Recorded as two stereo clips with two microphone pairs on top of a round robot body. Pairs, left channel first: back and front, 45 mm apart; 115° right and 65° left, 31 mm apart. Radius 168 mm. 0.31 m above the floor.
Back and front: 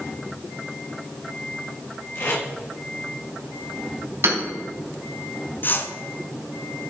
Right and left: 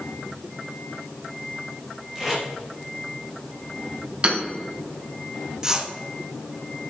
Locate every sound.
2.1 s tape being pulled: 140° left, 3.5 m
4.2 s hammering: 10° left, 3 m
5.6 s a whoosh: 130° left, 1.2 m